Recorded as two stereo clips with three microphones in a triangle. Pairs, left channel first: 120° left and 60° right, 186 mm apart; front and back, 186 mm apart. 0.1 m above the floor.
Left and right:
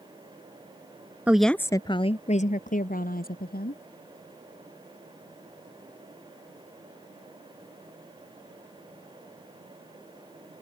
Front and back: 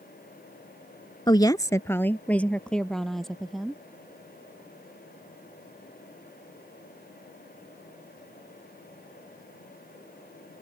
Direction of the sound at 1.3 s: 10° left.